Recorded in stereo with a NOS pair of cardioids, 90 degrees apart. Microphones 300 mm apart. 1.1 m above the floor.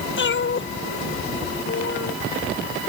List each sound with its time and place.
0.2 s a cat meowing: 40° left